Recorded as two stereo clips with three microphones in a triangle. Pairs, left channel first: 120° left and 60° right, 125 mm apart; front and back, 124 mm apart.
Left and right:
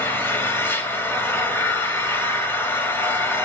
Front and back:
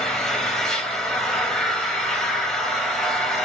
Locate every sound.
0.0 s an engine running: 80° left, 1.0 m